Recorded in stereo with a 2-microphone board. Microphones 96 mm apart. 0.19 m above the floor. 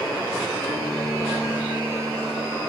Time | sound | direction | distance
0.7 | a guitar | 45° right (ahead or behind) | 7.5 m